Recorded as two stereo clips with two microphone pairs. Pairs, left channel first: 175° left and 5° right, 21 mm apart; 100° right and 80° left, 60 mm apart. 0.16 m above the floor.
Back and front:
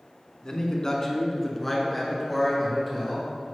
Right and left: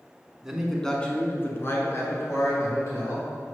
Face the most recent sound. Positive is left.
turn(degrees=-90)